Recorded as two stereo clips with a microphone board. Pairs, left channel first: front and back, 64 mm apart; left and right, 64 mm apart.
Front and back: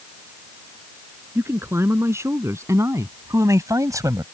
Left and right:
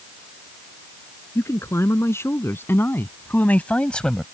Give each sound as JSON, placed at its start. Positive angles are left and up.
{"t": 1.4, "sound": "a man speaking", "azimuth_deg": 135}